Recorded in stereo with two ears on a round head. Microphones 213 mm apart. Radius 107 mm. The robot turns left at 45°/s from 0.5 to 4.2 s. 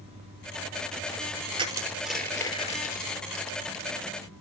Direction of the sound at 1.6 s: 25° right (ahead or behind).